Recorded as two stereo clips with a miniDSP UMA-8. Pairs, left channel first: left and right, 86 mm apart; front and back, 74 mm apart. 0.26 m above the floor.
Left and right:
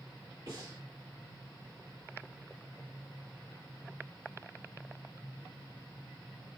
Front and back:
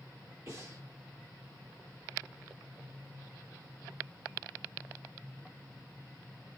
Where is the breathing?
135° right, 4.5 m.